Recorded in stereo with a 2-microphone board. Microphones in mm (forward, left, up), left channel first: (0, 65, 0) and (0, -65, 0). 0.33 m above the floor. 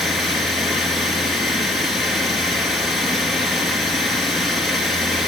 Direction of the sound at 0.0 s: Centre (ahead or behind).